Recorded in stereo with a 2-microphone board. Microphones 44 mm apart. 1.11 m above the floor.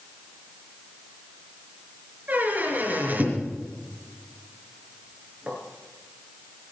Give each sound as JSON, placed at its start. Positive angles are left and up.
{"t": 2.3, "sound": "a squeak", "side_deg": -40, "distance_m": 4.5}